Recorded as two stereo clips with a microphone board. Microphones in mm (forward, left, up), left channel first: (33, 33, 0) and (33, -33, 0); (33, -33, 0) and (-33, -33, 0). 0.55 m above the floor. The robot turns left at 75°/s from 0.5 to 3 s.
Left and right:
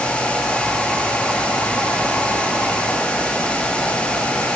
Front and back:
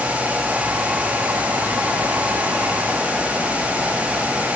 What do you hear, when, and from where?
Only background noise.